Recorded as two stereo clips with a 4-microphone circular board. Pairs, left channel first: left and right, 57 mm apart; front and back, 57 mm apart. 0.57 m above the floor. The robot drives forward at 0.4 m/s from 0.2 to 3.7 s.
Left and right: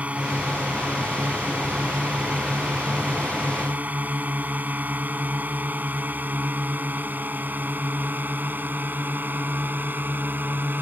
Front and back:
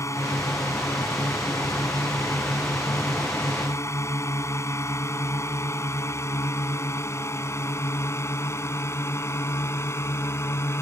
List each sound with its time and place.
0.0 s a drone: 25° right; by 10.8 s 35° right